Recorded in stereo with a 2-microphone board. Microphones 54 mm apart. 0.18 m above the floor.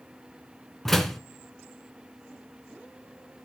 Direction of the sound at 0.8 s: 5° left (ahead or behind).